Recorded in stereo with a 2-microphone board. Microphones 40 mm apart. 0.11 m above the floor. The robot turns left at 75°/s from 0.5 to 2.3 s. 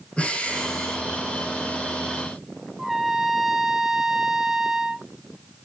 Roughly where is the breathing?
Ahead left.